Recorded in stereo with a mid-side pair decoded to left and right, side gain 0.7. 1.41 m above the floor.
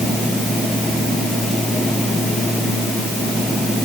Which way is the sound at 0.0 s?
Straight ahead.